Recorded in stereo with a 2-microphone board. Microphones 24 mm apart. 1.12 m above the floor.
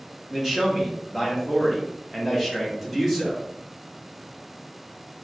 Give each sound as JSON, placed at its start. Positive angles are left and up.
{"t": 0.3, "sound": "a man speaking", "side_deg": -5, "distance_m": 1.1}